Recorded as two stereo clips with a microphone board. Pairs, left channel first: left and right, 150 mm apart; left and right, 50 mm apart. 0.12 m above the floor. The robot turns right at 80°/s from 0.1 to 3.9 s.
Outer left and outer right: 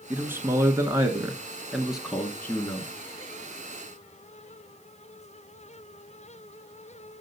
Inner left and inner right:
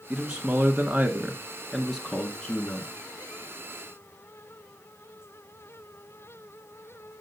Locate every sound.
0.1 s a man speaking: 10° right (ahead or behind), 1.1 m; by 2.9 s 20° left (ahead or behind), 1.1 m